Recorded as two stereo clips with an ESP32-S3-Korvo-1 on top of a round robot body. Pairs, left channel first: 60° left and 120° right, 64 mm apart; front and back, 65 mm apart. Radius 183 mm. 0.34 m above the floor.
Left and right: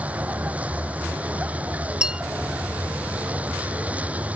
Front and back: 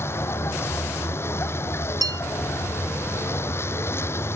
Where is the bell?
160° left.